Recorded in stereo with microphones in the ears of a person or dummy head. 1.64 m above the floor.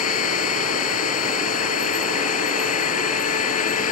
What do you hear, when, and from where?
0.0 s a machine running: 45° left (ahead or behind)